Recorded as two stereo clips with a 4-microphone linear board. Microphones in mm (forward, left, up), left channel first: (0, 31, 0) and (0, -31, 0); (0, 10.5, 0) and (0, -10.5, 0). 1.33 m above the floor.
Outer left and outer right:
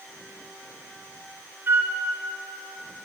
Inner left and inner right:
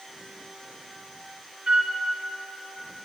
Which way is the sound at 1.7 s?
40° right (ahead or behind).